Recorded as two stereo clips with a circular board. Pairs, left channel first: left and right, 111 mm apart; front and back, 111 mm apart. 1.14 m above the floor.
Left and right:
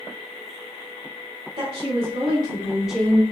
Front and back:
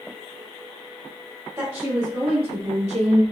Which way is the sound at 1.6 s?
120° right.